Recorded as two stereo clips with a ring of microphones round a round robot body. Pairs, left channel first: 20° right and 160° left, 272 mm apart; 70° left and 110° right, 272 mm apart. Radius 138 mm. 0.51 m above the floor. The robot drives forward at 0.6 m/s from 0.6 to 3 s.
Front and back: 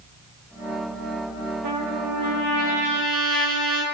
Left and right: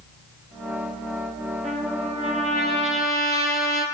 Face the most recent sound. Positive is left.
turn(degrees=180)